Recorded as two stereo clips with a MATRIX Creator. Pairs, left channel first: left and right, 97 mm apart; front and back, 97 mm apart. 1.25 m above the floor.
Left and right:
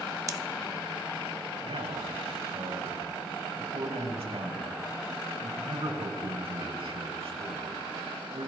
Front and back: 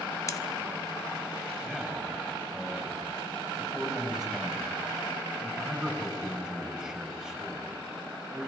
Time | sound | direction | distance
0.3 | scissors | 45° right | 0.9 m
1.6 | a man speaking | 95° right | 8 m